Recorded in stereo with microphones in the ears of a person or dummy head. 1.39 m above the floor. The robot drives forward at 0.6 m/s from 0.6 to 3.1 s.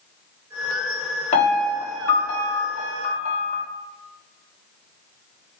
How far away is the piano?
About 1.7 m.